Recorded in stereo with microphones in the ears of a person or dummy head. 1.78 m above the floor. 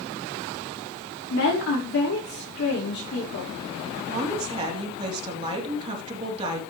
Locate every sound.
1.3 s a woman speaking: 75° left (ahead or behind), 5 m
4.0 s a woman speaking: 25° right (ahead or behind), 3.5 m